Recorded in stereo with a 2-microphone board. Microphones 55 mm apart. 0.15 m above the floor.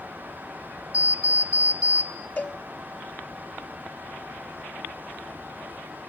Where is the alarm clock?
25° right (ahead or behind), 2.0 m.